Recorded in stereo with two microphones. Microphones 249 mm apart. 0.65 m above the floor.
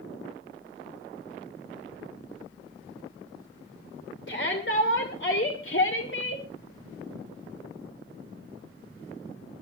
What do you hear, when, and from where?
4.3 s a shout: 50° left (ahead or behind), 2.5 m